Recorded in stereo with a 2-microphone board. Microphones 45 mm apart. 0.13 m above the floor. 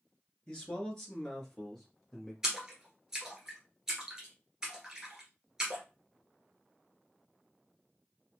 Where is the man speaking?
20° left (ahead or behind), 1.9 m; by 2.3 s 5° left (ahead or behind), 2.5 m.